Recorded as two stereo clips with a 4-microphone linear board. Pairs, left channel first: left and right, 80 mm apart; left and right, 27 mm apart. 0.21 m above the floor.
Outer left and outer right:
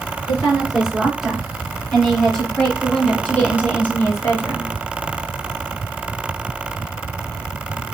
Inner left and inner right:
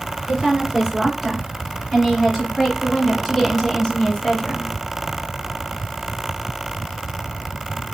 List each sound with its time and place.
0.3 s a woman speaking: 10° right (ahead or behind), 3 m; by 4.7 s 35° left (ahead or behind), 1.7 m